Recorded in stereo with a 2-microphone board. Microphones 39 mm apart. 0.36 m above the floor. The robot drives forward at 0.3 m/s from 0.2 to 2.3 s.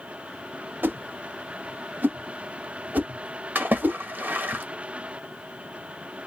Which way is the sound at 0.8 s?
55° right (ahead or behind).